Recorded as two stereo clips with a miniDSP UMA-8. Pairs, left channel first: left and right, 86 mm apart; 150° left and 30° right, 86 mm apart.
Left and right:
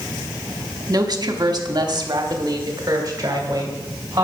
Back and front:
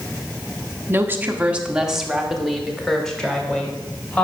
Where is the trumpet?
No trumpet in this recording.